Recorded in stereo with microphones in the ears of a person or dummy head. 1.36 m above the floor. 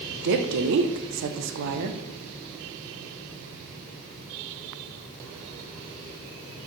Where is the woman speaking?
60° right (ahead or behind), 0.7 m.